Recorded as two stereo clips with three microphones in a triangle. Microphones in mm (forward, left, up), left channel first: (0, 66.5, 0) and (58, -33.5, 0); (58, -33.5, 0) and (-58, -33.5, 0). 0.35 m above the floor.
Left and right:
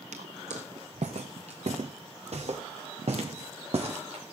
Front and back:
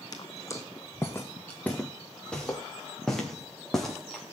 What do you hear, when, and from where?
0.1 s footsteps: 55° right, 1.5 m; by 4.3 s 90° right, 4.5 m